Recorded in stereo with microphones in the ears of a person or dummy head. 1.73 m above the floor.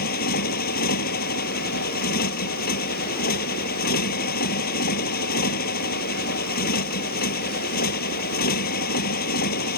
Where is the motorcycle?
55° left (ahead or behind).